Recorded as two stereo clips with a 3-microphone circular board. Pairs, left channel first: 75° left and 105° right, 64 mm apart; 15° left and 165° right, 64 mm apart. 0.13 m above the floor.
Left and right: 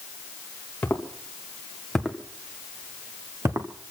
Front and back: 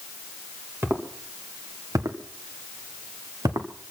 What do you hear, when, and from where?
0.8 s footsteps: 140° left, 3 m; by 3.7 s 140° right, 2 m